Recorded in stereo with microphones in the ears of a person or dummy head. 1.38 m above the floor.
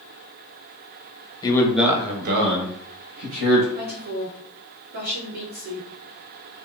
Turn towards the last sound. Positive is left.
turn(degrees=-50)  # may be behind; listen again after turning